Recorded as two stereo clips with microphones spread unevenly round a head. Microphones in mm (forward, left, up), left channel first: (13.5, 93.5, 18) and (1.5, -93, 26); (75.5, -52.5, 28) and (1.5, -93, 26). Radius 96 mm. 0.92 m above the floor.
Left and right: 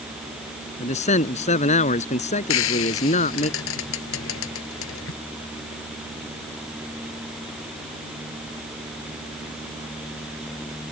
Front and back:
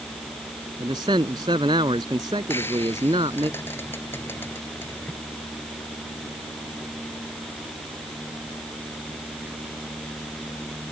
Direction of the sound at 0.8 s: 145° left.